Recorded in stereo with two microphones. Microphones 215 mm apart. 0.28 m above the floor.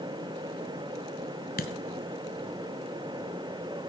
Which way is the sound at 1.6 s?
45° left (ahead or behind).